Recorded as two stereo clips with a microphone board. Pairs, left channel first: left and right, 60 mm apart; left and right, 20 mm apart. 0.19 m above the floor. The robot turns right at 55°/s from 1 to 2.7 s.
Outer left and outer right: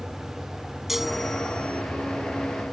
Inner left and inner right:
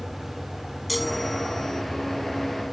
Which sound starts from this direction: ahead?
A chime, at 0.9 s.